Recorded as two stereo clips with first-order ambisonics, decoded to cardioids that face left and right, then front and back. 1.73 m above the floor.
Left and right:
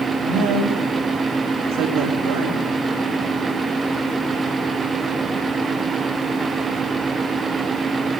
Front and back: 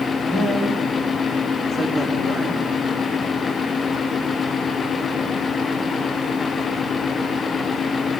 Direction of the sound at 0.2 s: 80° right.